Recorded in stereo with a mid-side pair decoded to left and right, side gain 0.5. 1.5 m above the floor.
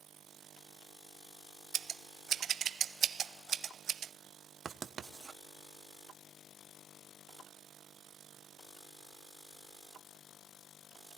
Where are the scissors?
50° right, 0.6 m.